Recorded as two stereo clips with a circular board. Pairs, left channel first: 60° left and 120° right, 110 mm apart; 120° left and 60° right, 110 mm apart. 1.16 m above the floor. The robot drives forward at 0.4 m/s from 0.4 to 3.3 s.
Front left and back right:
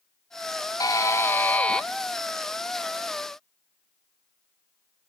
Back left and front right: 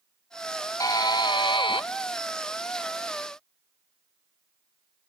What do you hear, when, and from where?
0.8 s a buzzer: 85° left, 0.6 m; by 1.9 s 140° left, 0.7 m